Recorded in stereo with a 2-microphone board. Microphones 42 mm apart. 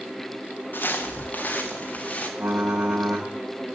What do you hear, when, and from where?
0.7 s footsteps: 50° left (ahead or behind), 1.8 m; by 2.3 s 30° left (ahead or behind), 2.5 m
2.4 s typing on a keyboard: 65° right (ahead or behind), 4 m